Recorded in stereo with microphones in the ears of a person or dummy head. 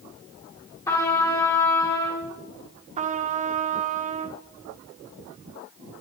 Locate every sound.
0.9 s a trumpet: 30° left (ahead or behind), 4 m
3.0 s a trumpet: 30° right (ahead or behind), 0.8 m